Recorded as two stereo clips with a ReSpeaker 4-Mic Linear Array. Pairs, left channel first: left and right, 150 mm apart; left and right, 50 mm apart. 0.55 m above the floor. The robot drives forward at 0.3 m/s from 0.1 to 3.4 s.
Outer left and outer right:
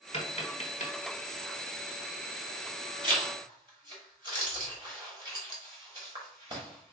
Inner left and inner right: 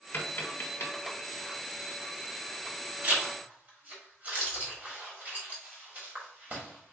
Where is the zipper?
35° right (ahead or behind), 1.2 m.